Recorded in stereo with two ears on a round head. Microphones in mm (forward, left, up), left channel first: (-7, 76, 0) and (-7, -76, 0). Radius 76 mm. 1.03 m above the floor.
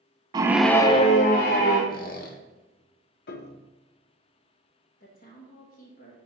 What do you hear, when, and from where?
0.3 s a scream: 25° right (ahead or behind), 0.6 m; by 1.8 s 60° left (ahead or behind), 1.3 m
1.9 s a squeak: 55° left (ahead or behind), 1.1 m
3.3 s a piano: 60° left (ahead or behind), 0.6 m
5.0 s a woman speaking: 55° left (ahead or behind), 1.3 m